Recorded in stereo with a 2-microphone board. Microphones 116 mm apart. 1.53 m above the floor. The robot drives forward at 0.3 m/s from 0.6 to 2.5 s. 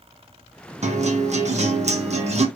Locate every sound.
0.8 s a guitar: 75° right (ahead or behind), 1.2 m; by 2.5 s 70° right (ahead or behind), 1.3 m